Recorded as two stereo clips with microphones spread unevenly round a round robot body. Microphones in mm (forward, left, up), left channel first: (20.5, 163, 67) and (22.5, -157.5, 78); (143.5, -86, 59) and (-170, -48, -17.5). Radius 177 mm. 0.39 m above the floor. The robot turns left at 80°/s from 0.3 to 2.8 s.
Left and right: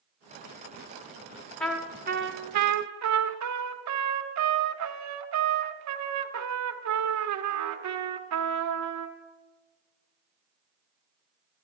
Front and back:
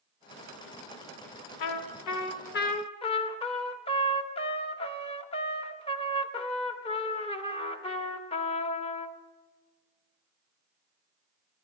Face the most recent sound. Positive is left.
turn(degrees=-90)